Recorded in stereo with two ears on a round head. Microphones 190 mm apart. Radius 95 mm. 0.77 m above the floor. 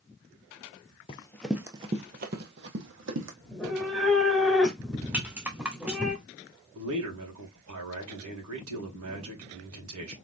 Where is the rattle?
5° right (ahead or behind), 1.1 m.